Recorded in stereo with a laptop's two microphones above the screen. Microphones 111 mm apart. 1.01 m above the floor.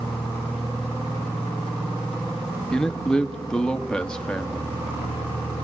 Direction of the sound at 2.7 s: 5° left (ahead or behind).